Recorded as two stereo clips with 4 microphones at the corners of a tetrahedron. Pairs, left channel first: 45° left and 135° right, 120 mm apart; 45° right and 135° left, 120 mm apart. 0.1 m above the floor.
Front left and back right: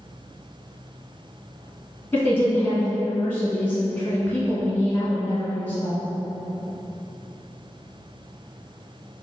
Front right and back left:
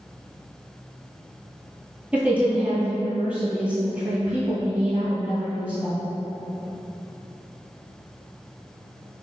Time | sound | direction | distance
2.1 | a woman speaking | 80° left | 1.1 m